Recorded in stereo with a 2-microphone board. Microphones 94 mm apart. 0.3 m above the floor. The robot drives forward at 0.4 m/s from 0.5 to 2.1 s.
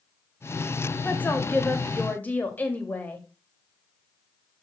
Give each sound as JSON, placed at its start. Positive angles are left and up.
{"t": 1.0, "sound": "a woman speaking", "side_deg": 20, "distance_m": 1.3}